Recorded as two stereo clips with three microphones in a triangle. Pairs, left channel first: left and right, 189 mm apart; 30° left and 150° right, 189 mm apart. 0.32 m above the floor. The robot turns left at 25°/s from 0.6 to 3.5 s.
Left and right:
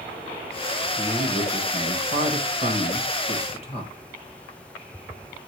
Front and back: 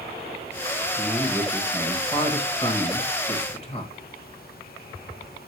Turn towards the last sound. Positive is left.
turn(degrees=60)